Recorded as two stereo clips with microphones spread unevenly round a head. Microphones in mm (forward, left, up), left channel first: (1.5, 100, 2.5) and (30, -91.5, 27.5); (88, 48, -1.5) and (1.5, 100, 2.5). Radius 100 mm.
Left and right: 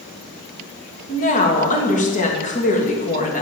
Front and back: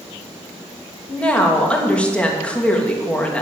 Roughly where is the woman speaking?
Ahead left.